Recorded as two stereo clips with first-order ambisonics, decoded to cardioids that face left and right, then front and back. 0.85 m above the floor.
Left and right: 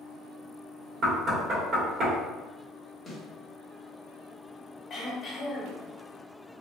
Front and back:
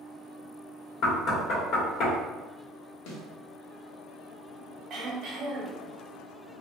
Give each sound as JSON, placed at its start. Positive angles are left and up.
{"t": 1.0, "sound": "knocking", "azimuth_deg": -35, "distance_m": 1.3}
{"t": 3.1, "sound": "a snare drum", "azimuth_deg": 10, "distance_m": 0.9}
{"t": 4.9, "sound": "throat clearing", "azimuth_deg": 140, "distance_m": 1.0}